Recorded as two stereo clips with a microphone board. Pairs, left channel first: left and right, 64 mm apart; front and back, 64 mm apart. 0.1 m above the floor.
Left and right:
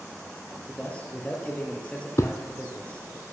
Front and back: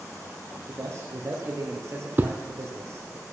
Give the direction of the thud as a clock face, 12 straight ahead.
8 o'clock.